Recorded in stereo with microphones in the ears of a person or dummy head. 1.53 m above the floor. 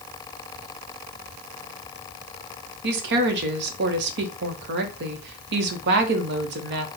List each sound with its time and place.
2.8 s a woman speaking: 65° right (ahead or behind), 0.9 m